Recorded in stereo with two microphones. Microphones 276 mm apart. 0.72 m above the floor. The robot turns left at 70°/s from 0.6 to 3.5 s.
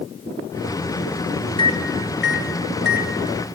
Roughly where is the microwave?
Centre.